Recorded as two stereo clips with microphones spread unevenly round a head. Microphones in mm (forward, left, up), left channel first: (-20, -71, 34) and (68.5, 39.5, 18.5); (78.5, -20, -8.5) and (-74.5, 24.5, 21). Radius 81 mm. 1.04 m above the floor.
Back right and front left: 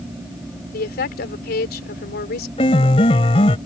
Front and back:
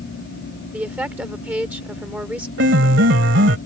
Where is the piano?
175° left.